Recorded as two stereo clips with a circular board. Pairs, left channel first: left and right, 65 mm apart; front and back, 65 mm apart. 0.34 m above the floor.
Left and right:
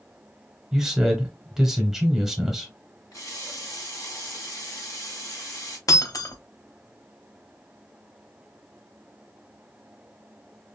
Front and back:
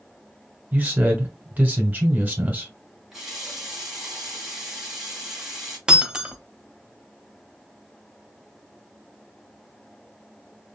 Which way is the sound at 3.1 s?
100° left.